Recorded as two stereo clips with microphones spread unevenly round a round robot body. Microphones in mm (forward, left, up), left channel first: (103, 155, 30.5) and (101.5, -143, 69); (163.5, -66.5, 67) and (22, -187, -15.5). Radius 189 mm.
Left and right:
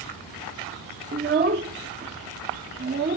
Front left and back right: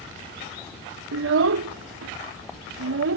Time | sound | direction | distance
1.1 | a child speaking | 160° right | ?